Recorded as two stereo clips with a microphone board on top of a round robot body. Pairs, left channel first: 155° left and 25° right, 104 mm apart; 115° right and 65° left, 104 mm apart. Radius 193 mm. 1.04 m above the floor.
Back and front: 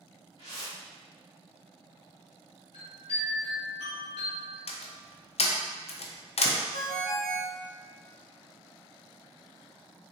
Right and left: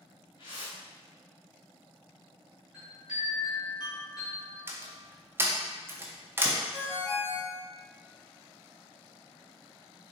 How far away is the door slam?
About 0.5 m.